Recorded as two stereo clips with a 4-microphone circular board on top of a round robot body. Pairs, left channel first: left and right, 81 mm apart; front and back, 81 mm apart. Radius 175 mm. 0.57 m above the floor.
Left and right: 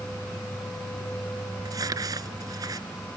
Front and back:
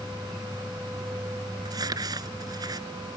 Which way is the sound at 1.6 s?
135° right.